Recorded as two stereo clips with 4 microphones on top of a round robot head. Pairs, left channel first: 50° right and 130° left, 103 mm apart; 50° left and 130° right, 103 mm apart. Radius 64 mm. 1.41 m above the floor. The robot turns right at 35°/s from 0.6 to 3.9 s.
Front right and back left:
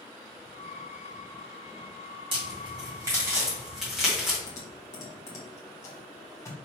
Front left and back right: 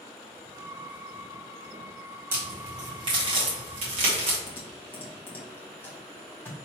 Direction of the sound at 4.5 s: 10° right.